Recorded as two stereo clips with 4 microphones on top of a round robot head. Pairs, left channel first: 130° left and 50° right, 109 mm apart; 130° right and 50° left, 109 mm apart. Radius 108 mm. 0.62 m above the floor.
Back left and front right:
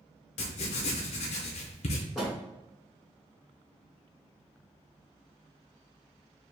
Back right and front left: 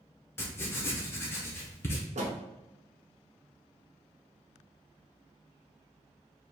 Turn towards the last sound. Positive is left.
turn(degrees=40)